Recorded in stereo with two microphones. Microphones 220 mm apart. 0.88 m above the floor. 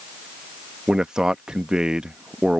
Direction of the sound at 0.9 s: 5° right (ahead or behind).